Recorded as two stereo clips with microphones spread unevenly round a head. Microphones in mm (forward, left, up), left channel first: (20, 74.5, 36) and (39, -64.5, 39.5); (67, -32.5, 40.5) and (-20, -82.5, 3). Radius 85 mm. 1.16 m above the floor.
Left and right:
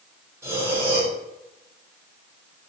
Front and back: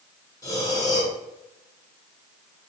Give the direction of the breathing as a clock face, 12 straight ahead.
12 o'clock.